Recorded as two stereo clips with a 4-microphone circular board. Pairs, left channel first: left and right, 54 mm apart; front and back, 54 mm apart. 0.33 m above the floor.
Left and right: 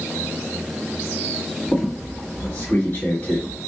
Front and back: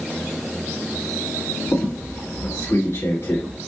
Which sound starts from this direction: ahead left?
A squeak, at 1.7 s.